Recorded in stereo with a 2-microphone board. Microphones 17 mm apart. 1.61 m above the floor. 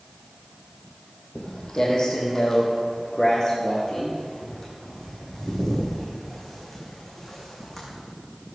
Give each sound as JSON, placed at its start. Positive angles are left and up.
{"t": 1.4, "sound": "footsteps", "side_deg": 40, "distance_m": 3.5}